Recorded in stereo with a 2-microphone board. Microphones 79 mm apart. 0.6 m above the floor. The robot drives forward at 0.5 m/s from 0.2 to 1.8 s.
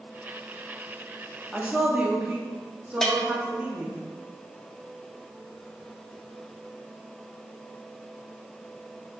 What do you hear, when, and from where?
1.5 s a woman speaking: 15° right (ahead or behind), 0.6 m
3.0 s a bell: 5° left (ahead or behind), 0.5 m